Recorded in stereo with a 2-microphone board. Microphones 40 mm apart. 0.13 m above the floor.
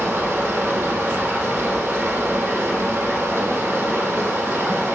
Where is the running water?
70° right (ahead or behind), 3.5 m.